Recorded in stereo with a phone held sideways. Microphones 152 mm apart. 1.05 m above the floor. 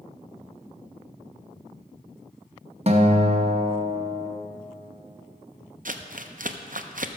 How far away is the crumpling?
About 0.6 m.